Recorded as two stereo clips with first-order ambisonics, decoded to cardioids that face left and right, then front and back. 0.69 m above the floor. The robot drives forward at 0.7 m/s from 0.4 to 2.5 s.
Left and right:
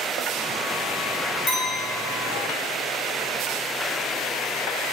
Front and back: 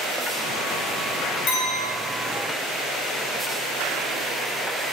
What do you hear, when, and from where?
1.5 s a clink: 25° left, 1.0 m; by 1.9 s 35° left, 0.8 m